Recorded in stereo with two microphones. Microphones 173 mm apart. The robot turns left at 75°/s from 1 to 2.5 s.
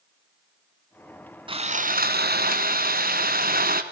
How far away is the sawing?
About 1.5 m.